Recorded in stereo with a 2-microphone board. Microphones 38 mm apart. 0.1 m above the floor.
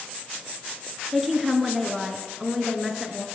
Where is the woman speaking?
Centre (ahead or behind), 1.1 m.